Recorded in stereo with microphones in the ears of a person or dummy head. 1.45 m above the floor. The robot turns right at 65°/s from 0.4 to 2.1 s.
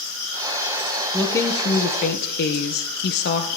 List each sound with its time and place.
1.1 s a woman speaking: straight ahead, 1.0 m; by 3.5 s 65° left, 1.0 m